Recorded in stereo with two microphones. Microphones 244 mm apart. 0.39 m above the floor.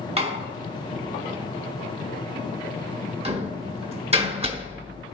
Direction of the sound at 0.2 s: 25° right (ahead or behind).